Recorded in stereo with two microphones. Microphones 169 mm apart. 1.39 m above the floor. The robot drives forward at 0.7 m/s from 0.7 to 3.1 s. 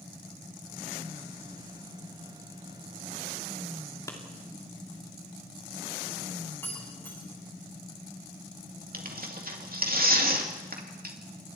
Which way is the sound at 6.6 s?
10° left (ahead or behind).